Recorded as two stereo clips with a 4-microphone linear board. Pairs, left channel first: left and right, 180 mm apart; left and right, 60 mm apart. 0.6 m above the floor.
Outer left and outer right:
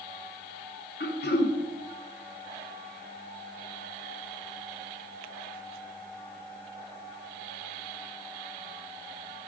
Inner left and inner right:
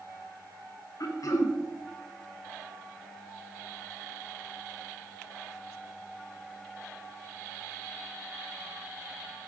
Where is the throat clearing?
65° left (ahead or behind), 1.3 m.